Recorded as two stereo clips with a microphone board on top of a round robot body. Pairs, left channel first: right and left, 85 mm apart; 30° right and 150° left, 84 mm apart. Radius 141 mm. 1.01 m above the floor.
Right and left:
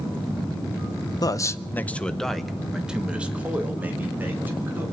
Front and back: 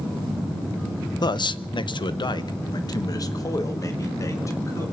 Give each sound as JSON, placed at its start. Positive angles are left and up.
{"t": 1.2, "sound": "a man speaking", "azimuth_deg": -55, "distance_m": 0.8}